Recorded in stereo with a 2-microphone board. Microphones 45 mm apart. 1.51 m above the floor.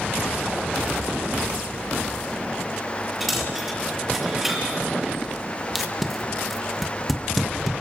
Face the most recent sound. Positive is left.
turn(degrees=0)  # may be behind; listen again after turning